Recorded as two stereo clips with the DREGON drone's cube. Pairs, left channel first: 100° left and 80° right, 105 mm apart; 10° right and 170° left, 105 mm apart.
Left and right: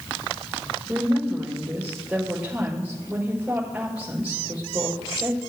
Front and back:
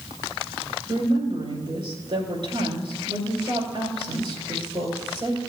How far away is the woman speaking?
About 5 m.